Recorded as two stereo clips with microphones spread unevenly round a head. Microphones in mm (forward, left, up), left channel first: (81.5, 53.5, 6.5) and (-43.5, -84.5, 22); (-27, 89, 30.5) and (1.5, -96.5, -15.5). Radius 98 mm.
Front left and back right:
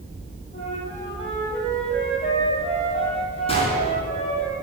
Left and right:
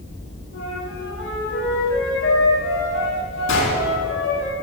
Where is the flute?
110° left, 7 m.